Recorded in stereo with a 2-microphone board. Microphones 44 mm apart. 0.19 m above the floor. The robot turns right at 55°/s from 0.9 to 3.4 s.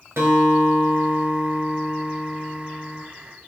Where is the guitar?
85° right, 1.1 m; by 3.0 s 30° left, 1.1 m.